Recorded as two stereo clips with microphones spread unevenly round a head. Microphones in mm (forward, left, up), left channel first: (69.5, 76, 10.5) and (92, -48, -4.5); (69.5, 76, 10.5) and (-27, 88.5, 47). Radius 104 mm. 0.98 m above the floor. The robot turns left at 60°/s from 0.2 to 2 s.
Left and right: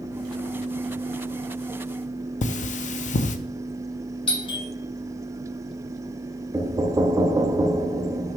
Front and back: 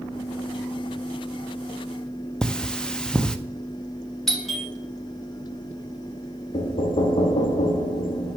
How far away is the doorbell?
About 2.0 m.